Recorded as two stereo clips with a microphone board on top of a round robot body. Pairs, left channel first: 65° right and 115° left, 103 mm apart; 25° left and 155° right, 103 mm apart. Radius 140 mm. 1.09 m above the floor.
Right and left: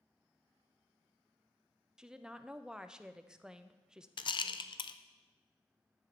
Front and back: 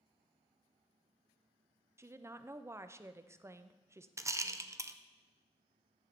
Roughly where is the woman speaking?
Behind.